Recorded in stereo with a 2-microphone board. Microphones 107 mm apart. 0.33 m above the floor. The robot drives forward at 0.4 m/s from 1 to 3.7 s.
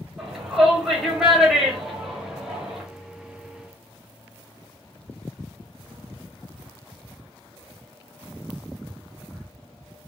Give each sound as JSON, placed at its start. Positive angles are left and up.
{"t": 0.2, "sound": "a shout", "side_deg": -5, "distance_m": 2.0}